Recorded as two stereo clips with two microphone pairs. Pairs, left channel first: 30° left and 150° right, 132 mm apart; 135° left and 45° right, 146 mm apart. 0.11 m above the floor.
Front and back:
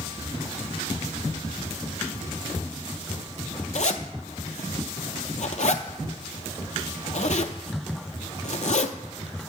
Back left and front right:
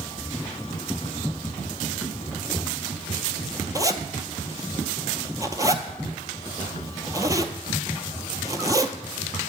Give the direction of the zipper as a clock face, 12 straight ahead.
11 o'clock.